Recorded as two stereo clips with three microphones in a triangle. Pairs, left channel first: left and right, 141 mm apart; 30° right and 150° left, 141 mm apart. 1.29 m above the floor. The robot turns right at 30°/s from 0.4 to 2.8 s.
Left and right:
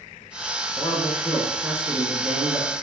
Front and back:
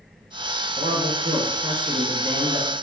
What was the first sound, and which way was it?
A man speaking, 165° left.